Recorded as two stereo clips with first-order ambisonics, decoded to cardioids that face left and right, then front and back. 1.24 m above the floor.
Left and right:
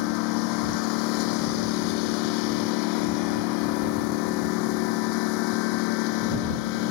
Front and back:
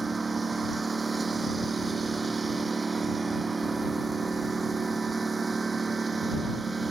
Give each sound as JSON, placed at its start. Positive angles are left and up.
{"t": 0.0, "sound": "a lawn mower", "azimuth_deg": 105}